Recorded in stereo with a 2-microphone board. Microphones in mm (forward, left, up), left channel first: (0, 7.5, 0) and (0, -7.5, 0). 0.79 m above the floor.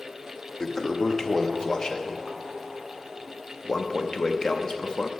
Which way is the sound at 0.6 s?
35° left (ahead or behind).